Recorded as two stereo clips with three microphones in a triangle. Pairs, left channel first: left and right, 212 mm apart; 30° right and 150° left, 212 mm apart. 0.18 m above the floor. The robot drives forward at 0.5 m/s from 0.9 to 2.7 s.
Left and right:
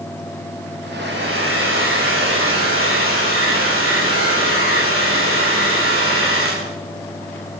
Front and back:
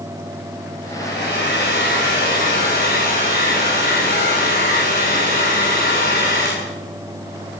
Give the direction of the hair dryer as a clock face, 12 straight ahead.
2 o'clock.